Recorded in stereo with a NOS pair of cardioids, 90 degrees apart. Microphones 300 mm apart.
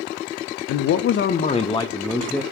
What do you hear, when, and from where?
0.7 s a man speaking: 70° left, 0.5 m; by 2.4 s straight ahead, 1.0 m